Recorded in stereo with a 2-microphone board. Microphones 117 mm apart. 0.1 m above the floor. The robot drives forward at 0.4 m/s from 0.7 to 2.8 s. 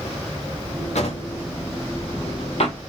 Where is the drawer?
70° left (ahead or behind), 1.6 m; by 2.8 s 60° left (ahead or behind), 1.7 m.